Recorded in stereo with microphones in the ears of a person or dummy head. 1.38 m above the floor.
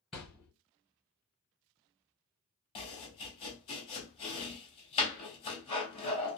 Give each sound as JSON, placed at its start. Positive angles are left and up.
{"t": 0.1, "sound": "a thud", "side_deg": -5, "distance_m": 1.5}
{"t": 2.8, "sound": "chopping", "side_deg": 30, "distance_m": 1.2}